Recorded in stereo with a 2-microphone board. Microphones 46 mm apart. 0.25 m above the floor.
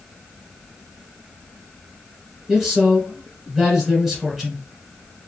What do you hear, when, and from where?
2.5 s a man speaking: 5° right (ahead or behind), 1.3 m